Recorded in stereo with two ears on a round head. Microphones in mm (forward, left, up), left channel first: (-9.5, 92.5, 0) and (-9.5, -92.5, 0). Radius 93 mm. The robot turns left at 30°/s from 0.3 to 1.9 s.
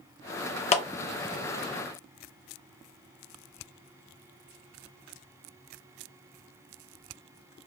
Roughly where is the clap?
Left.